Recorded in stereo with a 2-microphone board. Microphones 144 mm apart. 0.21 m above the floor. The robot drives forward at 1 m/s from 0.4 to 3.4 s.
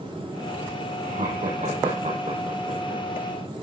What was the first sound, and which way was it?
Laughter, 75° right (ahead or behind).